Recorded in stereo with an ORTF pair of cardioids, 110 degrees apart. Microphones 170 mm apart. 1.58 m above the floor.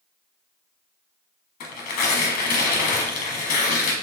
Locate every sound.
1.6 s tearing paper: 65° left, 1.2 m